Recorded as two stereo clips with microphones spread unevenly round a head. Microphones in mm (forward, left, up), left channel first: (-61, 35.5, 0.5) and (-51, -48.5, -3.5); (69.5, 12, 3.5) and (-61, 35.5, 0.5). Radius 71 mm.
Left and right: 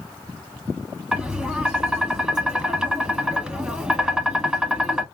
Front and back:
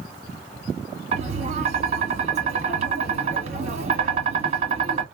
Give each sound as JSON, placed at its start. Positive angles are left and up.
{"t": 1.1, "sound": "tapping", "azimuth_deg": -165, "distance_m": 1.4}